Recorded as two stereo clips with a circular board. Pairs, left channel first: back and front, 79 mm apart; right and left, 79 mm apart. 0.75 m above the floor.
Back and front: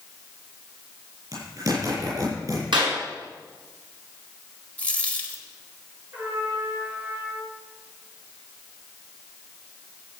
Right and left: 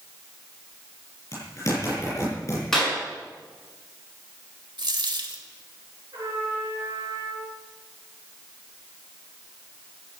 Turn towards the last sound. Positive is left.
turn(degrees=65)